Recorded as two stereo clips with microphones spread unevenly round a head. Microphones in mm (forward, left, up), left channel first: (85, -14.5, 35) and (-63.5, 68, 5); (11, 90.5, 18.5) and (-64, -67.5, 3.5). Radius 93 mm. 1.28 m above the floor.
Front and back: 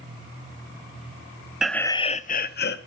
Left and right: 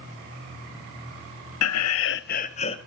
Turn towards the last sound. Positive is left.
turn(degrees=0)